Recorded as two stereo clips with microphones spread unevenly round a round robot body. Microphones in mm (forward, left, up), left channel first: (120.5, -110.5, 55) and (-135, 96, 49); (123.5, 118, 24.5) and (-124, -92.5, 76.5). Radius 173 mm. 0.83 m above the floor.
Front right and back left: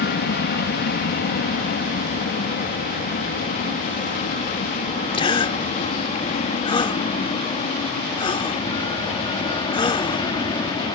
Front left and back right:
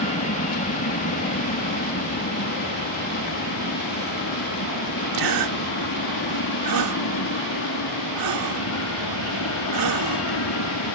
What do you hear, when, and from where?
0.0 s an aircraft: straight ahead; by 11.0 s 35° left
5.1 s a gasp: 115° right